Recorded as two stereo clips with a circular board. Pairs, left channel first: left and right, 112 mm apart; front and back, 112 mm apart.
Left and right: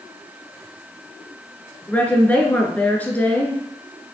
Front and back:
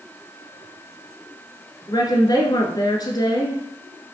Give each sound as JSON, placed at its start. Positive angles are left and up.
{"t": 1.9, "sound": "a woman speaking", "azimuth_deg": 20, "distance_m": 1.5}